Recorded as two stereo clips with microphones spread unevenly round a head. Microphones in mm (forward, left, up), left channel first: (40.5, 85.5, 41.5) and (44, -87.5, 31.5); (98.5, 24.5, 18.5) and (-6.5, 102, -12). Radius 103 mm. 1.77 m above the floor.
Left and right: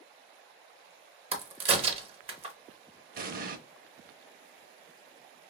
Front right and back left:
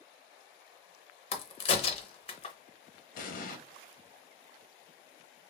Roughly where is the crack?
Ahead right.